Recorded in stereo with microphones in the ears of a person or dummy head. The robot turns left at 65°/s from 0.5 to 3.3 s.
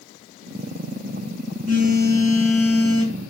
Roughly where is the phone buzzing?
Behind right.